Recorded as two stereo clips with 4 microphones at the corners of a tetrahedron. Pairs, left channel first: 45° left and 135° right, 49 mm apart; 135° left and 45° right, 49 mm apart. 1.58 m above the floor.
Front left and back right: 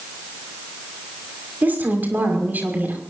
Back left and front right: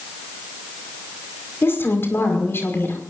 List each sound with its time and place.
1.6 s a woman speaking: 175° left, 5.5 m